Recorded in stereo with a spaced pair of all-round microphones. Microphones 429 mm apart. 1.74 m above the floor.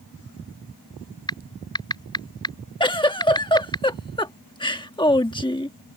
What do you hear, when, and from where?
1.3 s typing on a keyboard: 10° left (ahead or behind)
2.8 s a giggle: 10° left (ahead or behind)